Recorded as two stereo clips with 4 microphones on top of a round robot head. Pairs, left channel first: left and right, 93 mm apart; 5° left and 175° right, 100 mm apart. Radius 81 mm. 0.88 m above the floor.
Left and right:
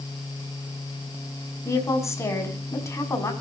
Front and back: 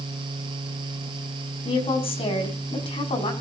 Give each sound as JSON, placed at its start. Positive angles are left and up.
{"t": 1.6, "sound": "a woman speaking", "azimuth_deg": 30, "distance_m": 6.0}